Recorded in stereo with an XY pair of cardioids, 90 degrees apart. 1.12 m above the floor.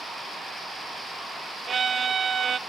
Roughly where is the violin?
Ahead right.